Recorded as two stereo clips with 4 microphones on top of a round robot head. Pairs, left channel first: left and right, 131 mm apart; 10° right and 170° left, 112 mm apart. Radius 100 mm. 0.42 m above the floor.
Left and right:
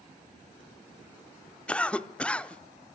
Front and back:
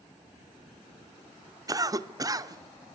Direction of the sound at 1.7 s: 165° left.